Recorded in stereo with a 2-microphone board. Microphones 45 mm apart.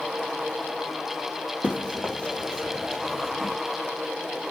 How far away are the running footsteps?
About 1.9 m.